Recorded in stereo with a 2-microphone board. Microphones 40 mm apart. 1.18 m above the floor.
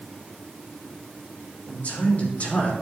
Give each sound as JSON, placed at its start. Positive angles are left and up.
{"t": 1.7, "sound": "a man speaking", "side_deg": 40, "distance_m": 3.5}